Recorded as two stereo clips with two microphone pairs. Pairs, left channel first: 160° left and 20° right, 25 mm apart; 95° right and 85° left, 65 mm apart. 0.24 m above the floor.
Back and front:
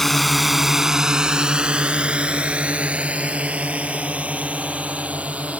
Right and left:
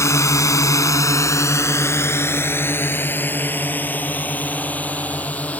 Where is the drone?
120° right; by 5.6 s 30° right.